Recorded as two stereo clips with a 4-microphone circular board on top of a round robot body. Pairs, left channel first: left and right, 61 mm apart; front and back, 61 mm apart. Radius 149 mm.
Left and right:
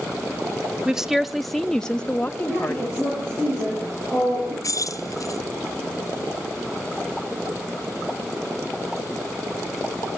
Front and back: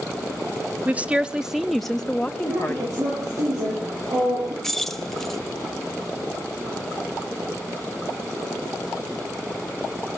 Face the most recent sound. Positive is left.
turn(degrees=85)